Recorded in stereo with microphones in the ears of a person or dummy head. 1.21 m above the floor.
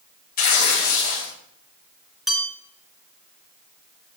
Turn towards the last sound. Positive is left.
turn(degrees=0)  # may be behind; listen again after turning